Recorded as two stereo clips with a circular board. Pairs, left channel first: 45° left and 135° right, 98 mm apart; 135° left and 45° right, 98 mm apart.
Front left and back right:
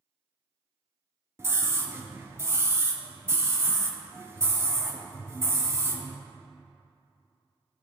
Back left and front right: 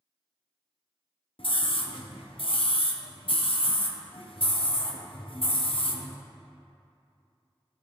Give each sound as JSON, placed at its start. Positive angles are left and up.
{"t": 1.4, "sound": "a scream", "azimuth_deg": 160, "distance_m": 1.0}